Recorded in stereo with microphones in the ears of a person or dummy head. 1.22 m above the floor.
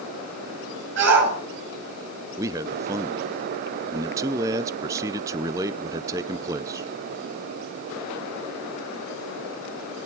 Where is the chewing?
No chewing in this recording.